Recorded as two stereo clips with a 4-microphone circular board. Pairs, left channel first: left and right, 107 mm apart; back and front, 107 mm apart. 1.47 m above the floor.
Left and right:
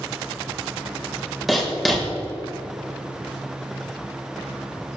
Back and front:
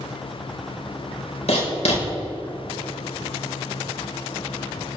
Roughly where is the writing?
Behind.